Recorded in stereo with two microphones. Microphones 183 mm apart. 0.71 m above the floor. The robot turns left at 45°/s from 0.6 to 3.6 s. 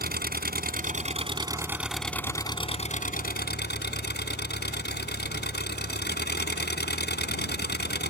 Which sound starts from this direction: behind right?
An engine running, at 0.0 s.